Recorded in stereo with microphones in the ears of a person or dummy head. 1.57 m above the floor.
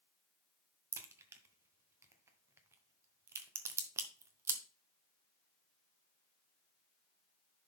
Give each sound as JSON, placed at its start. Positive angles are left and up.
{"t": 0.9, "sound": "a crack", "side_deg": -15, "distance_m": 0.9}